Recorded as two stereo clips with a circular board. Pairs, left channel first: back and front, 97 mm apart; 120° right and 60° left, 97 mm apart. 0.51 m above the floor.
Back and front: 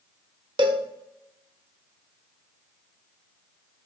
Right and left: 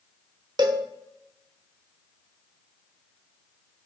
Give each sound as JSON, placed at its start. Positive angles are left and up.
{"t": 0.6, "sound": "a cowbell", "azimuth_deg": 25, "distance_m": 0.7}